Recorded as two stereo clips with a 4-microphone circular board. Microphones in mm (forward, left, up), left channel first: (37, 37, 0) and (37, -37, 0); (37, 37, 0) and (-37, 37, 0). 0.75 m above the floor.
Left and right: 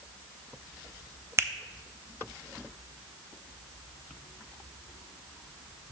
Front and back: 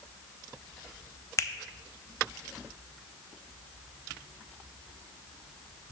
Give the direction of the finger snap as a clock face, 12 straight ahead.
1 o'clock.